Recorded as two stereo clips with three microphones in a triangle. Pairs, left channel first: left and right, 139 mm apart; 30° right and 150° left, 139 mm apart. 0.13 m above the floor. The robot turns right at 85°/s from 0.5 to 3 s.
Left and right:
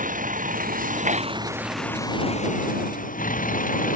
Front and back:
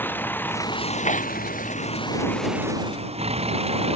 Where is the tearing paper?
65° right; by 1.4 s 40° right.